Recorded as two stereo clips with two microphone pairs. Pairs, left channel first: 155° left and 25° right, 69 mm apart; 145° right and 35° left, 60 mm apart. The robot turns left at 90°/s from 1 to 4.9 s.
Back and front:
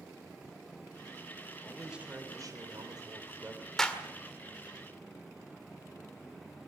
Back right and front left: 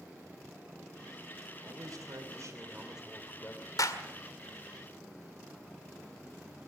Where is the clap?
125° right, 1.9 m; by 4.0 s 145° right, 1.9 m.